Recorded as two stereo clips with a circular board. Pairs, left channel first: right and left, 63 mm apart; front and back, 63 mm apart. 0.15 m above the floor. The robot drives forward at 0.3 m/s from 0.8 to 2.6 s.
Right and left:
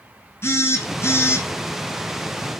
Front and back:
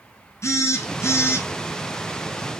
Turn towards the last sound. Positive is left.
turn(degrees=-50)